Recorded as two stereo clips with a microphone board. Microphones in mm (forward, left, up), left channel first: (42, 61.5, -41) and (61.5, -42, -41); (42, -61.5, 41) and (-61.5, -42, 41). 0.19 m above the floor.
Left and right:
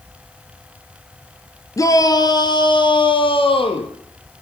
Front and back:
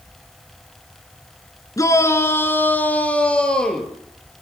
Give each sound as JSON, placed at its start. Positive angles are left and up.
{"t": 1.8, "sound": "a shout", "azimuth_deg": 45, "distance_m": 2.5}